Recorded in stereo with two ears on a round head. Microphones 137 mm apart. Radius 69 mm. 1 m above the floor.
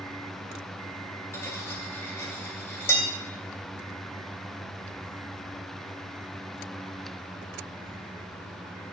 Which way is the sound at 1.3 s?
15° left (ahead or behind).